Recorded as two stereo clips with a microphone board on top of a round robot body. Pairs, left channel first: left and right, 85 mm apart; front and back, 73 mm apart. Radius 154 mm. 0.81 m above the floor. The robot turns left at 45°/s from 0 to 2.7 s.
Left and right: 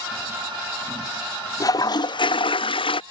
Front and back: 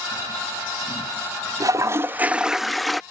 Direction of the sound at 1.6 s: 140° left.